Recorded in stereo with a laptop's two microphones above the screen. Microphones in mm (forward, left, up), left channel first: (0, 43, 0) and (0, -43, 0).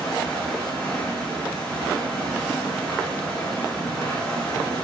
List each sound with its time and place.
0.0 s running water: 15° left (ahead or behind), 6 m